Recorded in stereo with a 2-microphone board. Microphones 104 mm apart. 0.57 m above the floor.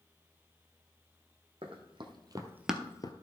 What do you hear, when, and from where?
1.6 s running footsteps: 60° right (ahead or behind), 2.0 m; by 3.1 s 45° left (ahead or behind), 0.9 m